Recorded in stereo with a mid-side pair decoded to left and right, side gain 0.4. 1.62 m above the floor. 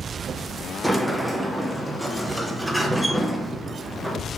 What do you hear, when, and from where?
0.8 s a sliding door: 10° right, 0.6 m